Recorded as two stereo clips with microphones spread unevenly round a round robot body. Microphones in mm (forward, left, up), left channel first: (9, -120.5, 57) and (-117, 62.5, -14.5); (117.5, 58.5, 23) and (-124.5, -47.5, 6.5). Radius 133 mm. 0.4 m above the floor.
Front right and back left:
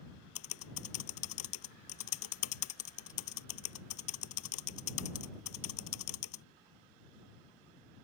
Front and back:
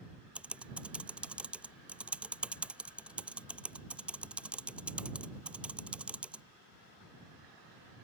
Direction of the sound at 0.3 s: 70° right.